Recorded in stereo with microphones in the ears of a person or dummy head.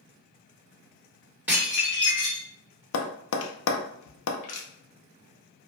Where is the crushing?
35° left (ahead or behind), 0.7 m.